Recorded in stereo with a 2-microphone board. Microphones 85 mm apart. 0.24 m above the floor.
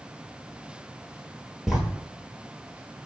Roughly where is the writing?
Centre.